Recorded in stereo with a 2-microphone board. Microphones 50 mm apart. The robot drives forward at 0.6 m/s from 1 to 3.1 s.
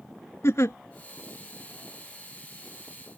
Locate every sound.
0.4 s a giggle: 65° left (ahead or behind)